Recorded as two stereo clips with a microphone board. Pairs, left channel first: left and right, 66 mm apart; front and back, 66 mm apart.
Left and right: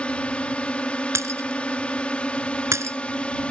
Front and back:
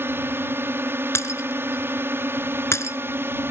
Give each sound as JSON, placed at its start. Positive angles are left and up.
{"t": 0.0, "sound": "a drone", "azimuth_deg": 155}
{"t": 1.1, "sound": "breaking glass", "azimuth_deg": -45}